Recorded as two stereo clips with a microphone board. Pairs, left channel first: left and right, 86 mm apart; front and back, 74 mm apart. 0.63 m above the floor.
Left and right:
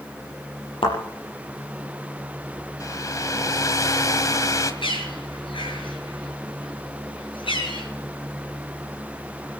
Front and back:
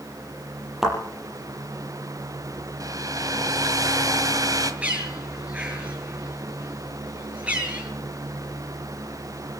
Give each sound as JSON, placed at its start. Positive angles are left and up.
{"t": 0.8, "sound": "a thud", "azimuth_deg": 95, "distance_m": 6.5}
{"t": 2.8, "sound": "a hair dryer", "azimuth_deg": 140, "distance_m": 1.7}
{"t": 4.8, "sound": "a bird", "azimuth_deg": 105, "distance_m": 7.5}